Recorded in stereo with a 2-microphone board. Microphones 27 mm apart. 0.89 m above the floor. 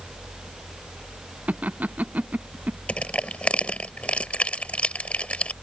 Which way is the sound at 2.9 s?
50° left (ahead or behind).